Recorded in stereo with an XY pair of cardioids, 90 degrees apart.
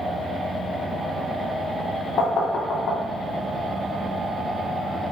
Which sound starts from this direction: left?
Knocking, at 2.2 s.